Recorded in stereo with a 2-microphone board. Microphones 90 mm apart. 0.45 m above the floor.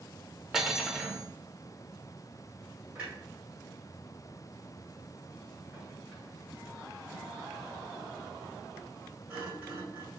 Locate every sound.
0.5 s cutlery clinking: 5° right (ahead or behind), 0.7 m
3.0 s a clunk: 15° right (ahead or behind), 2.5 m